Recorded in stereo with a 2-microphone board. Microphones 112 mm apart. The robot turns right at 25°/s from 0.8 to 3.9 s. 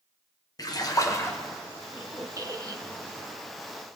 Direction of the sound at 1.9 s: 140° right.